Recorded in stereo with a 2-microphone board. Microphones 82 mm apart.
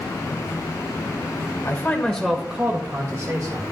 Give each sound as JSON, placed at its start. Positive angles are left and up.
{"t": 1.6, "sound": "a man speaking", "side_deg": 25, "distance_m": 1.4}